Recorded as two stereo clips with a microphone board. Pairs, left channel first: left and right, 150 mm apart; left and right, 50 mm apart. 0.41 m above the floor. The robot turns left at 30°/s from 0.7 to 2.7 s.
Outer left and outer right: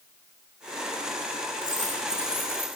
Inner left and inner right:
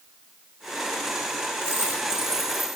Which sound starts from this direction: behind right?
A dropped coin, at 1.6 s.